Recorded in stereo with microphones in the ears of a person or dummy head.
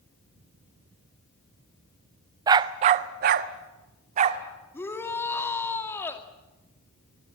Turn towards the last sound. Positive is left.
turn(degrees=15)  # may be behind; listen again after turning